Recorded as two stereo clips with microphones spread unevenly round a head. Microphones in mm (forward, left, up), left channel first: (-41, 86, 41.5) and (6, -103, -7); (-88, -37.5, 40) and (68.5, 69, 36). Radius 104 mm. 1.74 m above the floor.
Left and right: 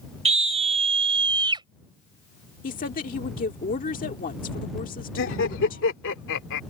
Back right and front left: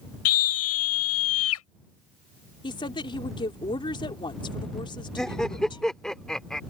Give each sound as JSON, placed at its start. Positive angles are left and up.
{"t": 0.2, "sound": "a scream", "azimuth_deg": -135}
{"t": 2.6, "sound": "a woman speaking", "azimuth_deg": 150}
{"t": 5.2, "sound": "laughter", "azimuth_deg": 125}